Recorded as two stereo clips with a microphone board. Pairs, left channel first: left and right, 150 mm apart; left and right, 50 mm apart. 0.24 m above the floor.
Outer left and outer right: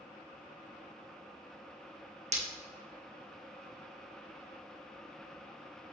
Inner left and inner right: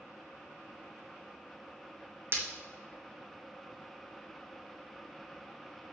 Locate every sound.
2.3 s breaking glass: 45° right (ahead or behind), 1.9 m